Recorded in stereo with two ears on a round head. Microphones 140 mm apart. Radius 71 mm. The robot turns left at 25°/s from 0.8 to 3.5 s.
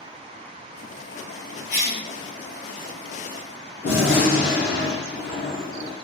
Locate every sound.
1.7 s a cough: 55° left (ahead or behind), 1.0 m; by 2.0 s 50° left (ahead or behind), 1.0 m
3.8 s a gunshot: 85° left, 1.4 m